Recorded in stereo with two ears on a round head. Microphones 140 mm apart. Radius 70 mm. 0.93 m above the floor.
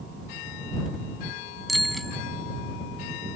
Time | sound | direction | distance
1.7 | a bicycle bell | centre (ahead or behind) | ?